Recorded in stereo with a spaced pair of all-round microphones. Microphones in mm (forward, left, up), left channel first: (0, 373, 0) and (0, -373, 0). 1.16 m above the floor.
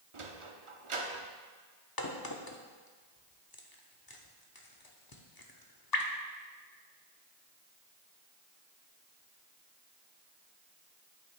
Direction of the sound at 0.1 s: 45° right (ahead or behind).